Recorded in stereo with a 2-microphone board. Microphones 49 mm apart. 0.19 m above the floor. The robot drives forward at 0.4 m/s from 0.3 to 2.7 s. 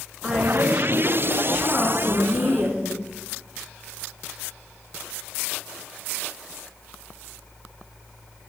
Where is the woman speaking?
15° right (ahead or behind), 1.9 m; by 3.1 s 10° right (ahead or behind), 2.5 m.